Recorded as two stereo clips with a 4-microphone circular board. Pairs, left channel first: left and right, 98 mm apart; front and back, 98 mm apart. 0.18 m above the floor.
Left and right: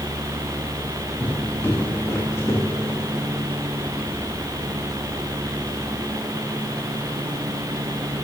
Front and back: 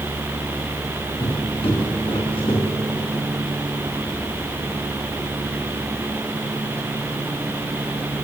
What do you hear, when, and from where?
1.2 s footsteps: 20° left, 4 m; by 3.0 s 30° left, 3.5 m